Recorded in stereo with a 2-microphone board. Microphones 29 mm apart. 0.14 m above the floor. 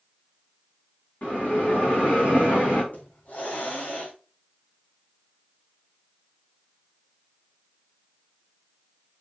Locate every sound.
1.2 s a bell: 85° left, 5 m
2.9 s a hiss: 70° left (ahead or behind), 2.5 m